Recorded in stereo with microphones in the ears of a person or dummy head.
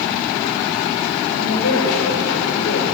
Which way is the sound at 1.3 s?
85° left.